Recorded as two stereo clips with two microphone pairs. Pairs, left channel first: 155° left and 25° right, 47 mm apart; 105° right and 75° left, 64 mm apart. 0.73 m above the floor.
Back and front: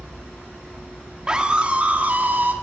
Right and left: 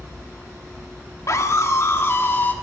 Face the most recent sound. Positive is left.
turn(degrees=-55)